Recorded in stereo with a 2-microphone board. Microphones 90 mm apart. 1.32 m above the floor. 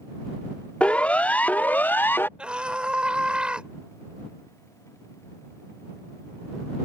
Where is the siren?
15° left (ahead or behind); by 2.3 s 25° left (ahead or behind).